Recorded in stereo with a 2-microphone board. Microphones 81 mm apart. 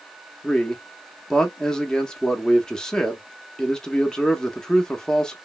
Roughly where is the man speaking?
Centre.